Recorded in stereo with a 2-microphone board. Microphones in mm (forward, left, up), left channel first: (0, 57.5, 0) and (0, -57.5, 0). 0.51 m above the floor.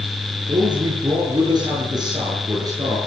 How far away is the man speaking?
About 8.5 m.